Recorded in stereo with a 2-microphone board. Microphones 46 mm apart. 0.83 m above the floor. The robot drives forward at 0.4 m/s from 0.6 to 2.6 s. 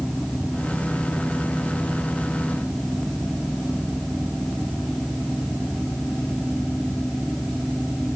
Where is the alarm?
No alarm in this recording.